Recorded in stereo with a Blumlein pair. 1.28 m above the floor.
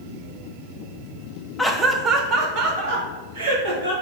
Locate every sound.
1.6 s laughter: 10° left, 0.6 m; by 3.9 s 55° right, 2.5 m